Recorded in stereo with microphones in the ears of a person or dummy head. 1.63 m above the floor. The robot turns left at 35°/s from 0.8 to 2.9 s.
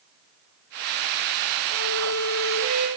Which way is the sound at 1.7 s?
55° right.